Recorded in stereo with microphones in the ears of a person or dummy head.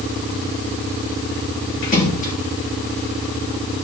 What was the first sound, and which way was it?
A splash, 40° left (ahead or behind).